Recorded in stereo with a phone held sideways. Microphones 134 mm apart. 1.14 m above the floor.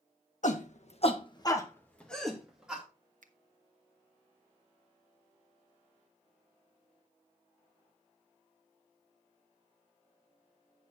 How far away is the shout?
About 1.6 m.